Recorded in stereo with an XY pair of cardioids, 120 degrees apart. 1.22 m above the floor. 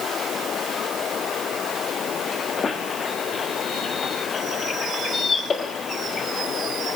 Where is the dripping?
No dripping in this recording.